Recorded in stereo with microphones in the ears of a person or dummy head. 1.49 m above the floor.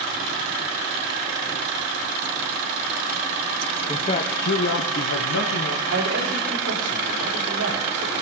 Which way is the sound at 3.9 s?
20° left (ahead or behind).